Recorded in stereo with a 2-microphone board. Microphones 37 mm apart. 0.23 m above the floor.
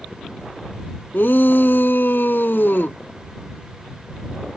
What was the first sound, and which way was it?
A shout, 65° left (ahead or behind).